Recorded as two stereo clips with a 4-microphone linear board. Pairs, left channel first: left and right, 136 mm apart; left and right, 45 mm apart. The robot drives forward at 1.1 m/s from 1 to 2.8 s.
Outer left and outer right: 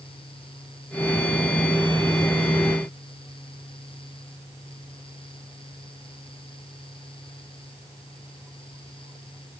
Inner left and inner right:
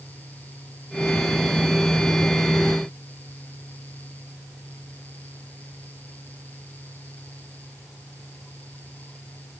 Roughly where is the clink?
I don't hear a clink.